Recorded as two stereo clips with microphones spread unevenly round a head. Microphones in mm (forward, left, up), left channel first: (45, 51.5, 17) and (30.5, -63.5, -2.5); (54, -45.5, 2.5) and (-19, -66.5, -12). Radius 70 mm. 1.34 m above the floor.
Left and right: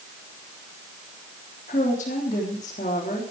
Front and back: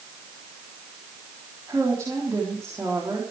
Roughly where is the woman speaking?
Behind left.